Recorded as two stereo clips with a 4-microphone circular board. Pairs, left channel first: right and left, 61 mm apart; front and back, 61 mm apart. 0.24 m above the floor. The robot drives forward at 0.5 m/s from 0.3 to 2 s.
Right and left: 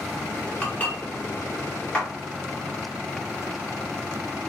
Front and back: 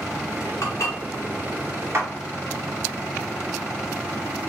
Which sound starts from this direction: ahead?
Dishes clattering, at 0.6 s.